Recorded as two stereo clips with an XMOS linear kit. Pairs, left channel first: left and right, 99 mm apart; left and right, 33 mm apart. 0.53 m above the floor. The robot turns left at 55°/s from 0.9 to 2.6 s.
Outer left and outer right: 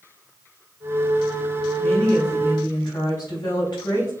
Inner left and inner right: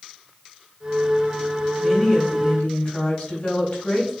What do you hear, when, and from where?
1.8 s a woman speaking: 175° left, 4 m; by 4.1 s 130° left, 4 m